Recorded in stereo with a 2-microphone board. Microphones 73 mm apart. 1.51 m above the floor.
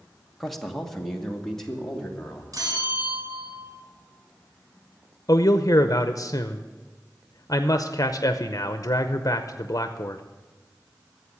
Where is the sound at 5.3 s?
50° left (ahead or behind), 0.6 m.